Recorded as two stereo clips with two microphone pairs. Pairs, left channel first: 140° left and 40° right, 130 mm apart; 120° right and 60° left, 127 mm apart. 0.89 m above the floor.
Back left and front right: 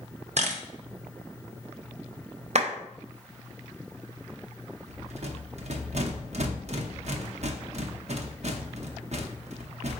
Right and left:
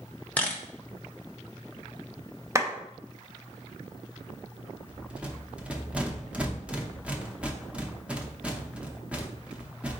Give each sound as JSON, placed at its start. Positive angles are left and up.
{"t": 0.4, "sound": "a camera shutter", "azimuth_deg": -40, "distance_m": 0.7}
{"t": 2.5, "sound": "a clap", "azimuth_deg": -5, "distance_m": 0.6}
{"t": 4.9, "sound": "a rattle", "azimuth_deg": -20, "distance_m": 0.6}